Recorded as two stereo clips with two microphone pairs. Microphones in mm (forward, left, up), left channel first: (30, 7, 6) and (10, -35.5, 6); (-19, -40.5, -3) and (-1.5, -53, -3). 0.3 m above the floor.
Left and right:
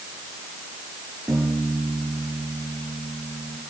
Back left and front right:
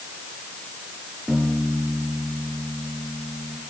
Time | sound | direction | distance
1.3 | a piano | 130° right | 6 m